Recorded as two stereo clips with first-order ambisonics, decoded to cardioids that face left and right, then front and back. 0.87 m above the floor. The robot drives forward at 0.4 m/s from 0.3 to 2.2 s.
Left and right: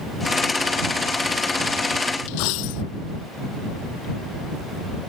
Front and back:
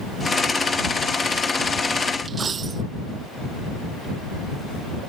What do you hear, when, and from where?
2.3 s a dropped coin: 110° left